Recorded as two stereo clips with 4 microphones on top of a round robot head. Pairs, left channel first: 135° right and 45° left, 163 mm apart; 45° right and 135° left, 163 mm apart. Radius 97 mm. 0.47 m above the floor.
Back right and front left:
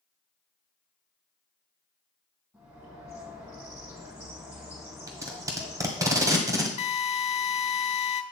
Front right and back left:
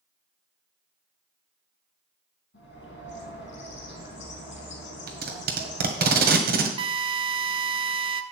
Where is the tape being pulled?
115° left, 1.5 m.